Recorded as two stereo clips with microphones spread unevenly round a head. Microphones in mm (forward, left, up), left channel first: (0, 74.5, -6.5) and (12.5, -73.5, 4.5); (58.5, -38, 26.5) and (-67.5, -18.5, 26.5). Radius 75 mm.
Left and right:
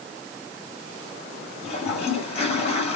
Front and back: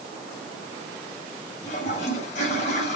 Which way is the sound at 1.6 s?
40° left.